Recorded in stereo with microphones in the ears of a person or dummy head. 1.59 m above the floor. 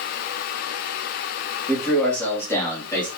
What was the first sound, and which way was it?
A man speaking, centre (ahead or behind).